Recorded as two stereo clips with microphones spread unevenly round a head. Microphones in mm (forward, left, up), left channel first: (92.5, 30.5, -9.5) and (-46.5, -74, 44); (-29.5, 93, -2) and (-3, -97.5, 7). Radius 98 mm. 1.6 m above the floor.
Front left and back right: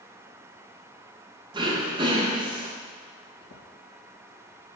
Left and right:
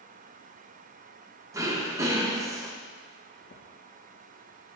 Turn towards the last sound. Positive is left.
turn(degrees=75)